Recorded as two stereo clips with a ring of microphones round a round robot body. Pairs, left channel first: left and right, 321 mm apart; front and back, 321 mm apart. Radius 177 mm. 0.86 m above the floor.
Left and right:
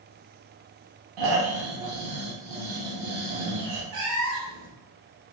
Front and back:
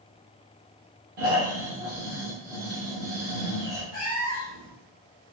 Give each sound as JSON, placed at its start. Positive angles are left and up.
{"t": 1.2, "sound": "snoring", "azimuth_deg": -115, "distance_m": 0.8}
{"t": 3.9, "sound": "a cat meowing", "azimuth_deg": -65, "distance_m": 0.9}